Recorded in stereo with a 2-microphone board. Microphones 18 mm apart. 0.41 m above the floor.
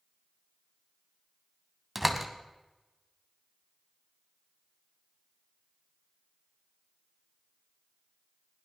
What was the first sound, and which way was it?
A door slam, 15° right (ahead or behind).